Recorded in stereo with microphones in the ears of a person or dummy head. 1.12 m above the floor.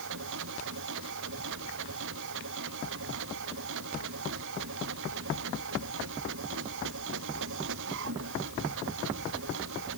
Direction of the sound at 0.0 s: 70° right (ahead or behind).